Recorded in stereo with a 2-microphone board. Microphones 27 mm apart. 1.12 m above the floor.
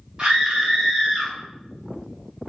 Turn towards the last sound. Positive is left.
turn(degrees=-10)  # may be behind; listen again after turning